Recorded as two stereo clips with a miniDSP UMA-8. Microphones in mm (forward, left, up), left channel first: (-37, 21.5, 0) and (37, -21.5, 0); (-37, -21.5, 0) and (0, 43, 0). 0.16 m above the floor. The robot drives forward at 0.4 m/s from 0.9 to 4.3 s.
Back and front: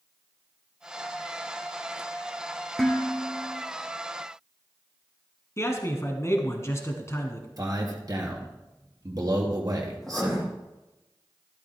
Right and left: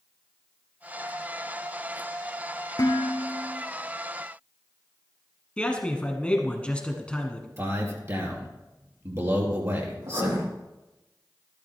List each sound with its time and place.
2.8 s dishes clattering: 125° right, 1.7 m; by 3.6 s 130° right, 1.9 m
5.6 s a man speaking: 175° left, 1.4 m
7.6 s a man speaking: 10° left, 2.5 m
10.0 s writing: 65° left, 5 m